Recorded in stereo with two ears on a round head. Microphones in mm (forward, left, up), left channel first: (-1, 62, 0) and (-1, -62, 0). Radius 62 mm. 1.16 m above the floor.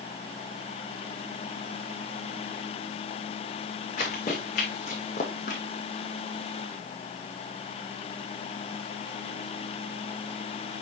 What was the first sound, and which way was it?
Running footsteps, 55° left (ahead or behind).